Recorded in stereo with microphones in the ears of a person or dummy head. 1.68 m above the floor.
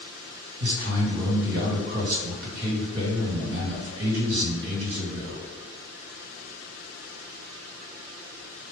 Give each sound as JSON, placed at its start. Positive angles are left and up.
{"t": 0.6, "sound": "a man speaking", "side_deg": -70, "distance_m": 1.9}